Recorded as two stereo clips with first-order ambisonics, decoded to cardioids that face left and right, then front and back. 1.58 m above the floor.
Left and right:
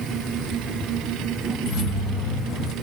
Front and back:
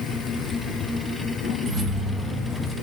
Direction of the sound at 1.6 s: 130° left.